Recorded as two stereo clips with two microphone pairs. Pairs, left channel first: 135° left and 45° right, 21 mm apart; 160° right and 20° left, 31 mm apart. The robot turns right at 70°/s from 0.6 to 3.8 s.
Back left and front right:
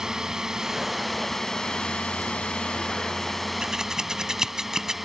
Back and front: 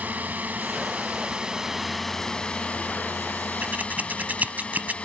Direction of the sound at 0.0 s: 15° left.